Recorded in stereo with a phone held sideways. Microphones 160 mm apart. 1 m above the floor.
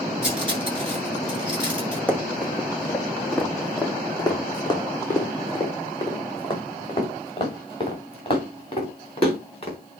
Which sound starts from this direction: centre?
Running footsteps, at 2.1 s.